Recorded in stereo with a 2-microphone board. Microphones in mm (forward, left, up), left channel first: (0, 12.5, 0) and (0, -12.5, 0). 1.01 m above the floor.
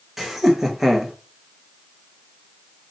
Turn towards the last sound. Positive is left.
turn(degrees=-5)  # may be behind; listen again after turning